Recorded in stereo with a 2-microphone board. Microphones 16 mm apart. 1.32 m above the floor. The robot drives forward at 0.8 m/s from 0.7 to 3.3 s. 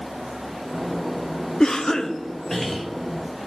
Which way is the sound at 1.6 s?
45° left (ahead or behind).